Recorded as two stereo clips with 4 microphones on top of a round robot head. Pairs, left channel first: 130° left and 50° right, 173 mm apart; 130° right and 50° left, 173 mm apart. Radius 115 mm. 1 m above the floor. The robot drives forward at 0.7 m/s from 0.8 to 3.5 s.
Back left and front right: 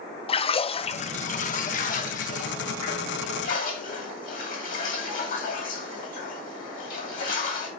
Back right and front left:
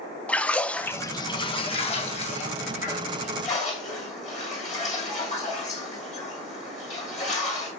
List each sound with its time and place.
0.3 s a splash: 150° left, 0.5 m; by 7.7 s 175° left, 2 m